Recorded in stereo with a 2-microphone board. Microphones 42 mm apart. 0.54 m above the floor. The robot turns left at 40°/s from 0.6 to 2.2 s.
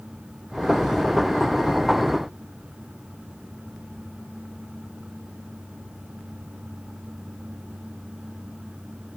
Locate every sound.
Only background noise.